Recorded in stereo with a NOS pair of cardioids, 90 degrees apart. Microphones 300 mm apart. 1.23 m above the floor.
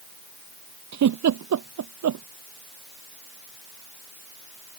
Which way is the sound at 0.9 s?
60° right.